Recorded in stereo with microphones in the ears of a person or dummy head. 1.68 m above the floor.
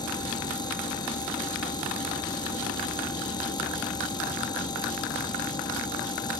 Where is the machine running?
20° left (ahead or behind).